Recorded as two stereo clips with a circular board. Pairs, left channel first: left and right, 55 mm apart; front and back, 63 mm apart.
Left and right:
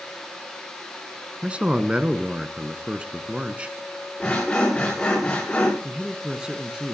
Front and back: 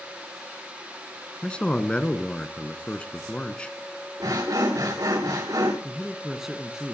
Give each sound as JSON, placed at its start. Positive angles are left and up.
{"t": 1.4, "sound": "a man speaking", "azimuth_deg": -50, "distance_m": 1.2}
{"t": 4.2, "sound": "sawing", "azimuth_deg": 160, "distance_m": 8.0}
{"t": 5.8, "sound": "a man speaking", "azimuth_deg": -115, "distance_m": 1.3}